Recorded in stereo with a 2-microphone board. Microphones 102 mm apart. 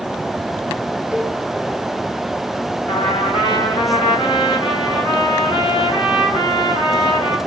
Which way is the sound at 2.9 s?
55° left (ahead or behind).